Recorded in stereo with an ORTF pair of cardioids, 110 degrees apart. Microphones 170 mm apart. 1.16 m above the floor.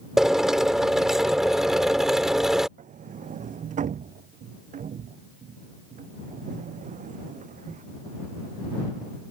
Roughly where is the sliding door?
Ahead right.